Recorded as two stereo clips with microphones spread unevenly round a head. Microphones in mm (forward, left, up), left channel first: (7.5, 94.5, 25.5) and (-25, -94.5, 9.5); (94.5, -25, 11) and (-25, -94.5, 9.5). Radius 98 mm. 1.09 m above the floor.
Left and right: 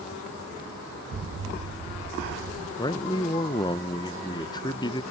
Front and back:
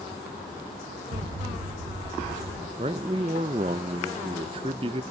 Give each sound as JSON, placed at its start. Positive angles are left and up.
{"t": 1.1, "sound": "an explosion", "azimuth_deg": -130, "distance_m": 0.7}
{"t": 2.8, "sound": "a man speaking", "azimuth_deg": 150, "distance_m": 0.5}